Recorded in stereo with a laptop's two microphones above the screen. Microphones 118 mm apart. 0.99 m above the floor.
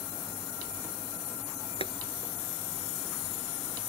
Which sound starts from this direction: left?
Boiling, at 1.8 s.